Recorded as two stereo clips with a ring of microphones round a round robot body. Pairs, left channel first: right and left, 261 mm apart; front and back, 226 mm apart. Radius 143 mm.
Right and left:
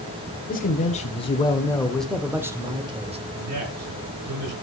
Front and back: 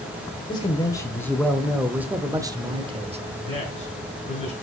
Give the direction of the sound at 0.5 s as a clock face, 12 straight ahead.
2 o'clock.